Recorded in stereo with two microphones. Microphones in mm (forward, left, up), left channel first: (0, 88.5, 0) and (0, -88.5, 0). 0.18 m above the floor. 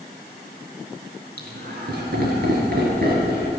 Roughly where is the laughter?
Right.